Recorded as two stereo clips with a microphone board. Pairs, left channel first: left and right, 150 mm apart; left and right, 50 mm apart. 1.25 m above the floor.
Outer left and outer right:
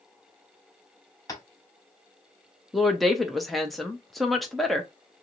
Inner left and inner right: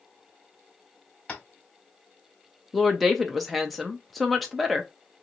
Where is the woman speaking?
Centre (ahead or behind), 0.6 m.